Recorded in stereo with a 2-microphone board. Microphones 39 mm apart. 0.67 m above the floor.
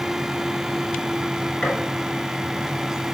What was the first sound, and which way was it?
A gunshot, 20° left (ahead or behind).